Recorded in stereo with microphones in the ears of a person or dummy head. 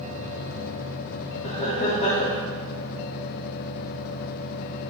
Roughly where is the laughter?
Left.